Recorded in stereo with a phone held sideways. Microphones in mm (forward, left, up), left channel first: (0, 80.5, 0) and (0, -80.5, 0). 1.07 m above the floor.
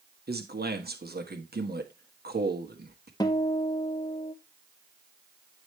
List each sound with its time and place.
0.3 s a man speaking: 80° right, 1.4 m
3.2 s a guitar: 25° left (ahead or behind), 1.2 m